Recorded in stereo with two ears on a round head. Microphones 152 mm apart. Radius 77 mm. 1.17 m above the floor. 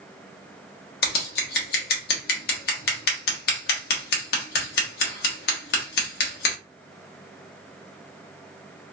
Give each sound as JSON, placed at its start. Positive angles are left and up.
{"t": 1.0, "sound": "scissors", "side_deg": 60, "distance_m": 0.9}